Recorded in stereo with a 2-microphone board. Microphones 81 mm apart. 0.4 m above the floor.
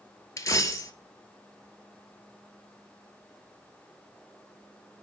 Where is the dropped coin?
45° left (ahead or behind), 0.5 m.